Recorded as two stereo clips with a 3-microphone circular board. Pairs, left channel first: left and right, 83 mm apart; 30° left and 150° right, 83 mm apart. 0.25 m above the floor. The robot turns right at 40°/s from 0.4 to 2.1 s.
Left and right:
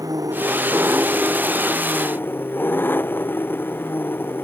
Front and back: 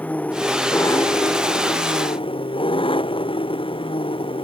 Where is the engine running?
45° right; by 4.4 s 25° left.